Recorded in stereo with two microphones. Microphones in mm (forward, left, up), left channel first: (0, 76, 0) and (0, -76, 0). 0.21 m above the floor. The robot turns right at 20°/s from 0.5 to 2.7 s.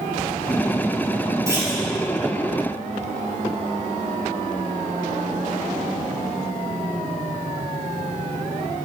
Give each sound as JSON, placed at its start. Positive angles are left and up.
{"t": 1.5, "sound": "a clunk", "side_deg": -20, "distance_m": 2.5}